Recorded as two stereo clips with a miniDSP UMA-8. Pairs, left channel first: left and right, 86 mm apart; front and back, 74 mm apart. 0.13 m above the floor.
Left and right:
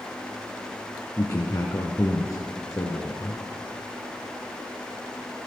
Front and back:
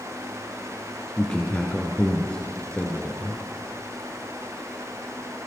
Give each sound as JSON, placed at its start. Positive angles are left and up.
{"t": 1.2, "sound": "a man speaking", "azimuth_deg": 65, "distance_m": 1.8}